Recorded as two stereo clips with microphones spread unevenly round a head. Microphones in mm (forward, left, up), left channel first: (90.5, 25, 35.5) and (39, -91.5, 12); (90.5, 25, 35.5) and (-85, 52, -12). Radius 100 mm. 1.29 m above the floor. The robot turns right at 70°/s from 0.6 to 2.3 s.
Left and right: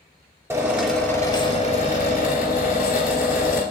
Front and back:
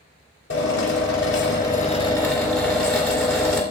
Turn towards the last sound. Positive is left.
turn(degrees=75)